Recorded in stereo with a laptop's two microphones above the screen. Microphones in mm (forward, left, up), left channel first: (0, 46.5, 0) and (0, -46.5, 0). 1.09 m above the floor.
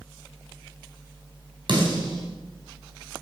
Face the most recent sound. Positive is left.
turn(degrees=-55)  # may be behind; listen again after turning